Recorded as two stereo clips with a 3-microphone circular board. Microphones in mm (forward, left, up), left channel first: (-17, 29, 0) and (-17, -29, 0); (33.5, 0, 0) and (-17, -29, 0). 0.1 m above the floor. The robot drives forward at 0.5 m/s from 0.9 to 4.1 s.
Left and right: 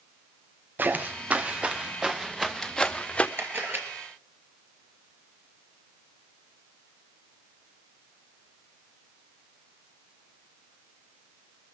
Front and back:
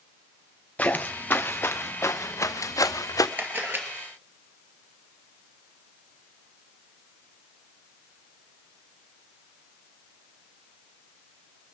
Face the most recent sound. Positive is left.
turn(degrees=-125)